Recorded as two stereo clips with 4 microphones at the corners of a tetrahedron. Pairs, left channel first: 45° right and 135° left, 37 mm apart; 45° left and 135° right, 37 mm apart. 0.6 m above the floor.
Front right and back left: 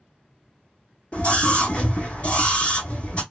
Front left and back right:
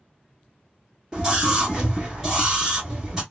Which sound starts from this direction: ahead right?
A scream, at 1.1 s.